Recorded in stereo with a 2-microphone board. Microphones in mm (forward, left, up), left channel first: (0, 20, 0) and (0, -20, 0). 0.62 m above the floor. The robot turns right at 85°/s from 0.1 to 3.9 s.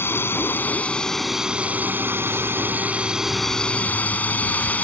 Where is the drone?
80° left; by 4.8 s 45° left.